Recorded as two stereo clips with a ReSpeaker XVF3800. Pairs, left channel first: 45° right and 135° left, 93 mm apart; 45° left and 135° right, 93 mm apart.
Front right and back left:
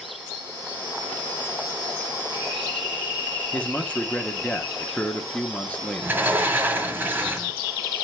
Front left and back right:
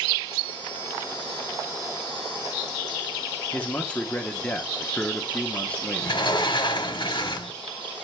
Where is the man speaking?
Straight ahead, 0.8 m.